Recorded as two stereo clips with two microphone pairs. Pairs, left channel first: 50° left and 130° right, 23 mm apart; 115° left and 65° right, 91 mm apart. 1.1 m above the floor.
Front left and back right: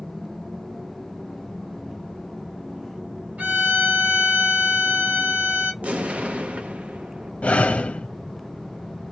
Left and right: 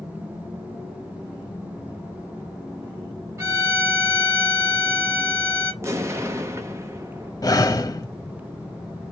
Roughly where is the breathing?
Ahead left.